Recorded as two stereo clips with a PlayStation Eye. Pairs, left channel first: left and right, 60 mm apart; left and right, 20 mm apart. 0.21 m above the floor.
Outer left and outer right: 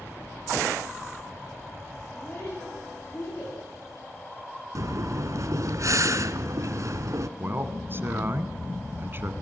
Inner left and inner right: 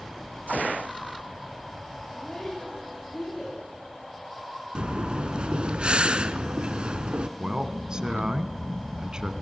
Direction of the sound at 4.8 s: 60° right (ahead or behind).